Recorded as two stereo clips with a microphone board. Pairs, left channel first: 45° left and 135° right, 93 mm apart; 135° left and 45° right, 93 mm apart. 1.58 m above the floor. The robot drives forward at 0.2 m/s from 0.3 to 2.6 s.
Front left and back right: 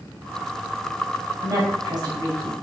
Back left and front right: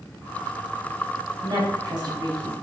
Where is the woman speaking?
85° right, 1.0 m; by 2.5 s 95° right, 1.0 m.